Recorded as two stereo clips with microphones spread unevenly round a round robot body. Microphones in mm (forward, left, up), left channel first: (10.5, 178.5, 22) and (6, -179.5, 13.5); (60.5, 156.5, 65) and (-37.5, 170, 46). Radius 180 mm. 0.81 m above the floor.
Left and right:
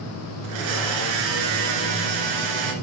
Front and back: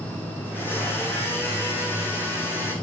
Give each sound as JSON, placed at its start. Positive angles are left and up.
{"t": 0.4, "sound": "a blender", "azimuth_deg": -100, "distance_m": 2.0}